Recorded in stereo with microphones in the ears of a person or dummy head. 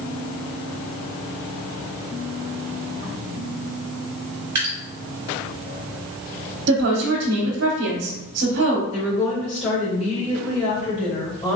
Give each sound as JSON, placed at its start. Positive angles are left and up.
{"t": 4.5, "sound": "dripping", "side_deg": -15, "distance_m": 0.9}
{"t": 6.7, "sound": "a woman speaking", "side_deg": -60, "distance_m": 0.8}
{"t": 8.9, "sound": "a woman speaking", "side_deg": 35, "distance_m": 1.9}